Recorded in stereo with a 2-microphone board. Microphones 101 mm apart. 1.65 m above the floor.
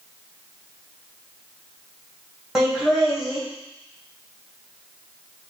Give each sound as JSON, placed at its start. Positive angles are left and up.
{"t": 2.5, "sound": "laughter", "side_deg": -5, "distance_m": 1.7}